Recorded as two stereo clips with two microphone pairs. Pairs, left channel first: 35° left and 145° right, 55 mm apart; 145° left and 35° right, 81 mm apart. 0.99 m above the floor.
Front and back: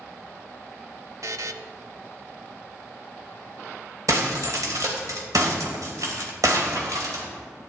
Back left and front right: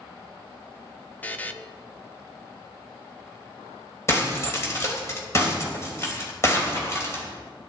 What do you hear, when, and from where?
1.2 s a buzzer: 140° right, 0.6 m
4.1 s breaking glass: 155° right, 3 m